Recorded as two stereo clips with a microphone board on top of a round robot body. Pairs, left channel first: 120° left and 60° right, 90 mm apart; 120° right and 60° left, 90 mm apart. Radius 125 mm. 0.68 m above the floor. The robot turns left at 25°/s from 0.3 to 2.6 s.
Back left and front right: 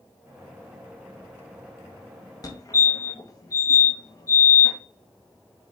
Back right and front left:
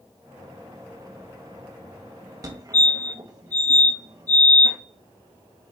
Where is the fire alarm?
90° left, 1.9 m; by 4.8 s 85° left, 1.9 m.